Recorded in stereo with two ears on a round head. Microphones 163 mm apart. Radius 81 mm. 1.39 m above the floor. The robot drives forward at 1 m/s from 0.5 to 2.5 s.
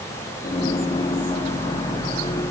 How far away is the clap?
No clap in this recording.